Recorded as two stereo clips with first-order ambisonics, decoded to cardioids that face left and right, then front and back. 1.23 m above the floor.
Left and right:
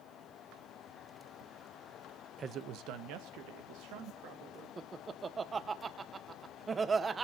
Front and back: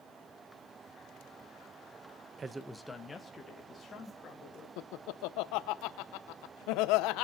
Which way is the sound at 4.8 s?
20° right.